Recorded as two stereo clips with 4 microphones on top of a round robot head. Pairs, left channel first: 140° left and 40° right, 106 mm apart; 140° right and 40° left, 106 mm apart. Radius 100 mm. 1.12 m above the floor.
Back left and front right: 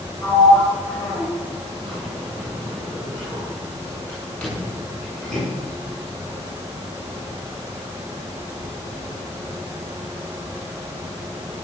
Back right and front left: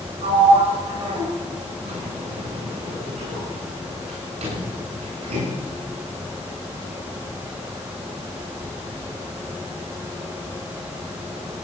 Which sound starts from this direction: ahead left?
A sliding door, at 0.2 s.